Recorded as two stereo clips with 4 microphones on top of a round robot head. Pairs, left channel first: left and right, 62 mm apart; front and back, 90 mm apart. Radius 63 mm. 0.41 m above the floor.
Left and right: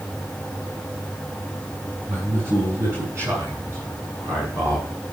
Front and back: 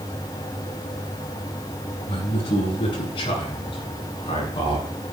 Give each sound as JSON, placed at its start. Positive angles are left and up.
{"t": 2.1, "sound": "a man speaking", "azimuth_deg": -30, "distance_m": 7.0}